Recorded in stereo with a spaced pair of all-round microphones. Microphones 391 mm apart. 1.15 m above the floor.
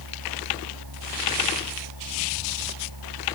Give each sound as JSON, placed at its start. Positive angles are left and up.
{"t": 0.0, "sound": "a machine running", "side_deg": -70}